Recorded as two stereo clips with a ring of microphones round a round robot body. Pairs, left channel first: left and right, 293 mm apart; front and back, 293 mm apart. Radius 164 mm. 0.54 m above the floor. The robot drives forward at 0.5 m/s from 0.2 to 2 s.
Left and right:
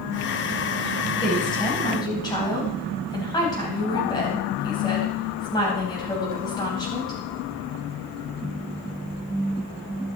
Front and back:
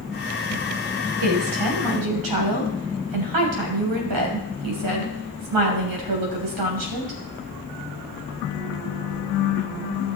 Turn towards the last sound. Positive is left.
turn(degrees=165)